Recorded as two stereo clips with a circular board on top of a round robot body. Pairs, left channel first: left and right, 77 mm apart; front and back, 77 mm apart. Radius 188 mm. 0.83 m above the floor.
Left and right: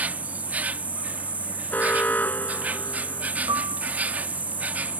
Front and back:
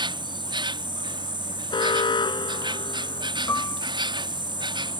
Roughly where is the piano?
Ahead right.